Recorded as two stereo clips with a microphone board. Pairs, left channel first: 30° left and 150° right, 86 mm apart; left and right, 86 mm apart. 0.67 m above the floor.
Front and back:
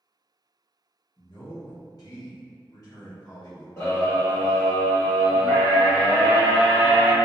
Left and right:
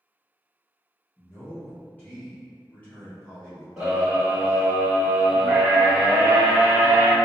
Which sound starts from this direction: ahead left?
A man speaking, at 1.2 s.